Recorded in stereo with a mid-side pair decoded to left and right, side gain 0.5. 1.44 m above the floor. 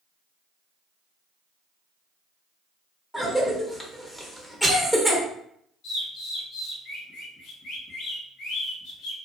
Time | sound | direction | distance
3.1 | a cough | 10° left | 0.8 m
5.8 | a bird | 70° left | 1.1 m